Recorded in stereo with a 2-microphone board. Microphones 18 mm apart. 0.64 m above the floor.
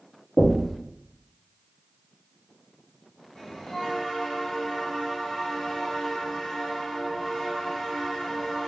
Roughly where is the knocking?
Centre.